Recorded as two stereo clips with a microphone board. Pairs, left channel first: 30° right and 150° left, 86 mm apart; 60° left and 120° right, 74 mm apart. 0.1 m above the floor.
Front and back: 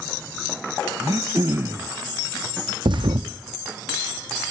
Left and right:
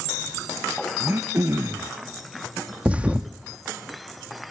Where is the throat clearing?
165° right, 0.8 m.